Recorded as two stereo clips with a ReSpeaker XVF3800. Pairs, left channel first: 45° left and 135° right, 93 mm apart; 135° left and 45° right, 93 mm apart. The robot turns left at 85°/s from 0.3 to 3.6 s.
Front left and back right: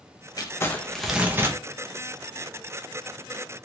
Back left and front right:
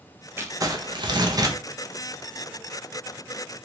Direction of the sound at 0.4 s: 15° left.